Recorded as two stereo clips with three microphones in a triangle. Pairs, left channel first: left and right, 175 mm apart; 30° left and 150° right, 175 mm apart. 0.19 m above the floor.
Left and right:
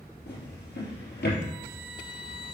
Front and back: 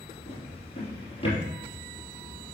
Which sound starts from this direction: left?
A drawer, at 0.3 s.